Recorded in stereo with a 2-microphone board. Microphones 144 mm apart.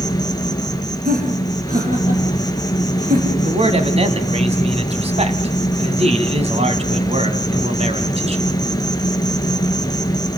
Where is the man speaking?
45° right (ahead or behind), 2 m.